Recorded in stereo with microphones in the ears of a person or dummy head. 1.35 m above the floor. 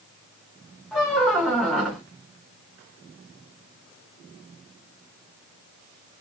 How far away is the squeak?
About 0.6 m.